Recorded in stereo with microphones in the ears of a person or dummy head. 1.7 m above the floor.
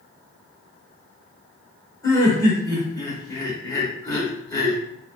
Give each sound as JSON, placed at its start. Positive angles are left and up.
{"t": 2.0, "sound": "laughter", "side_deg": 25, "distance_m": 1.1}